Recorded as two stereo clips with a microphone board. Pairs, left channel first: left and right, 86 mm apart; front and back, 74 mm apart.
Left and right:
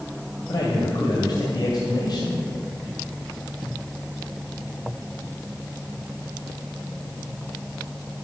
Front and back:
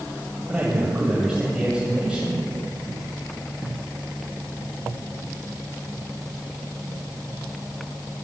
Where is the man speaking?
105° left, 2 m.